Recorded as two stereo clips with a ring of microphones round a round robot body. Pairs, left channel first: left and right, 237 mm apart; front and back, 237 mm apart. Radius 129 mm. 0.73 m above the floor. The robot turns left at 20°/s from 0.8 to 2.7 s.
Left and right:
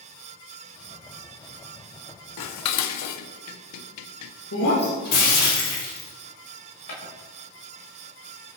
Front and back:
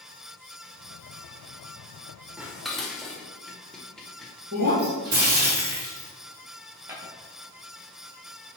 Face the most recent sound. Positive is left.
turn(degrees=100)